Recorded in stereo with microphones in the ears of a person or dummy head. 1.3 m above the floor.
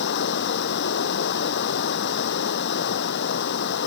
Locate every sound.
0.0 s running water: 60° left (ahead or behind)